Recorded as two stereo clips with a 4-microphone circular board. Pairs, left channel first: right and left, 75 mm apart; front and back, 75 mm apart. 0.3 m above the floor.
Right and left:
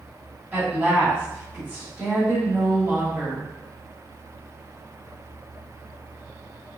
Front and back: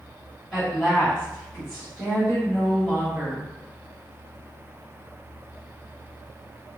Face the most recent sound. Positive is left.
turn(degrees=70)